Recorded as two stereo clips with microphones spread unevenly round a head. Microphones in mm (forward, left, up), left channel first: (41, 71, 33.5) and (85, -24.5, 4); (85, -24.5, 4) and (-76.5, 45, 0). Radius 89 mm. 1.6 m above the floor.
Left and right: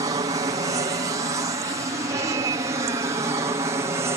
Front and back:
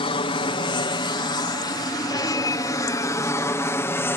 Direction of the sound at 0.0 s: 75° right.